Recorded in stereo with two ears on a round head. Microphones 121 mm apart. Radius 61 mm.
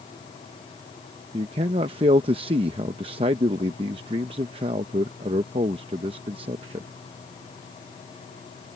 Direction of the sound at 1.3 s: 40° right (ahead or behind).